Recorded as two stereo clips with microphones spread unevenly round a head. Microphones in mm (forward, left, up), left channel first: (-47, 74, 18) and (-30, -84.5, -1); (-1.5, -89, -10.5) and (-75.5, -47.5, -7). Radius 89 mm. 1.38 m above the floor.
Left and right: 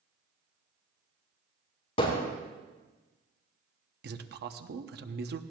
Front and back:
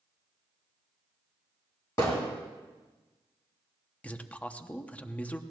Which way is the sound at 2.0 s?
40° left.